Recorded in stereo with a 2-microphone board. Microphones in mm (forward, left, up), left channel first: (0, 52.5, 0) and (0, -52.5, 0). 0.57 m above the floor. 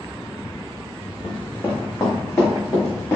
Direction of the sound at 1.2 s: 10° left (ahead or behind).